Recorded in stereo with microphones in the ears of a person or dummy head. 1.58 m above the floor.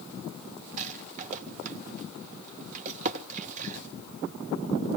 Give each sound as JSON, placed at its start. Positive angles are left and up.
{"t": 0.8, "sound": "a rattle", "side_deg": -45, "distance_m": 1.1}